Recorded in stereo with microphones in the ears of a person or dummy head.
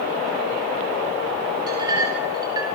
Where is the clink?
20° right (ahead or behind), 5 m.